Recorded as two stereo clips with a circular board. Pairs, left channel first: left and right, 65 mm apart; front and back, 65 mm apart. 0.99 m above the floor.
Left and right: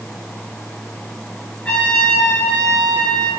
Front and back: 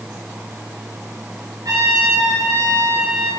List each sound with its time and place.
1.6 s a trumpet: 160° left, 8 m